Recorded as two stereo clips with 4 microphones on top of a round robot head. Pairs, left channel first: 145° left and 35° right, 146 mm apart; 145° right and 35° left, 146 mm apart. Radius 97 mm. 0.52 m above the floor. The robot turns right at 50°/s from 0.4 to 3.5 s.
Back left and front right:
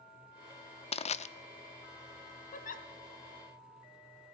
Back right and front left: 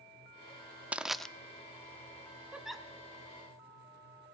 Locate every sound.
0.9 s crushing: 115° left, 0.5 m; by 1.3 s 130° left, 0.5 m
2.5 s a giggle: 115° left, 0.9 m; by 2.9 s 135° left, 0.9 m